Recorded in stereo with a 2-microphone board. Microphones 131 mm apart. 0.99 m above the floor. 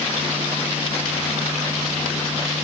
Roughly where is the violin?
I don't hear a violin.